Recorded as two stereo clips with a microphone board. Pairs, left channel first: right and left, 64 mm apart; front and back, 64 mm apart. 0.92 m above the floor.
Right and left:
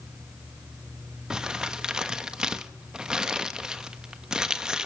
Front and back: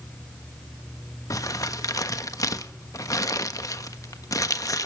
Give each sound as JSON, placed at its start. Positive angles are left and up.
{"t": 1.3, "sound": "crumpling", "azimuth_deg": 15, "distance_m": 1.2}